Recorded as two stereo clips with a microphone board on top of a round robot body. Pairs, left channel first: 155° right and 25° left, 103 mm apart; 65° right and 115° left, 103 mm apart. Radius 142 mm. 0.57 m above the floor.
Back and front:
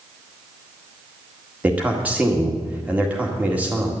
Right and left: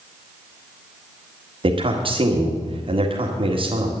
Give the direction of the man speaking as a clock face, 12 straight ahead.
9 o'clock.